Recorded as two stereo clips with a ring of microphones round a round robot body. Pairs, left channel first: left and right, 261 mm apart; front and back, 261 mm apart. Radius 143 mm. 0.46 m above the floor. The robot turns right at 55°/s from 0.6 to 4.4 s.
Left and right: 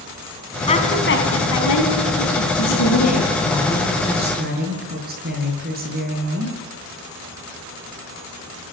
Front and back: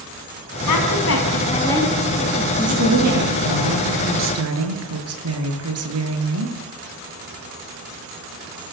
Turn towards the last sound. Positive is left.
turn(degrees=-150)